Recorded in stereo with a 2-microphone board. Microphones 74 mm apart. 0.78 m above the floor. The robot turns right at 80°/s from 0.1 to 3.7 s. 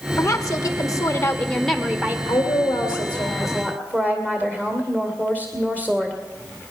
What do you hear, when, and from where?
0.2 s a woman speaking: 55° left, 1.6 m; by 2.2 s 145° right, 1.6 m
2.3 s a woman speaking: 40° left, 2.5 m; by 6.2 s 155° left, 2.5 m